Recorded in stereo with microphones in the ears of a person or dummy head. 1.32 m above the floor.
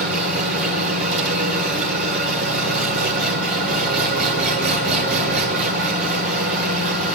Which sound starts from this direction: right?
An engine running, at 0.0 s.